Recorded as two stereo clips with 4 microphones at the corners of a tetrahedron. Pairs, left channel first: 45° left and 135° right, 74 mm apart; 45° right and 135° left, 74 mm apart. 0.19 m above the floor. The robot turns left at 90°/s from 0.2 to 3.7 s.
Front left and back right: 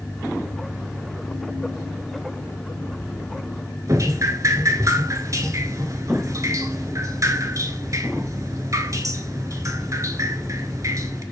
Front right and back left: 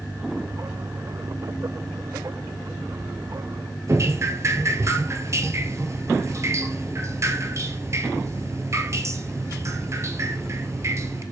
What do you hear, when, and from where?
3.9 s dripping: 175° right, 0.9 m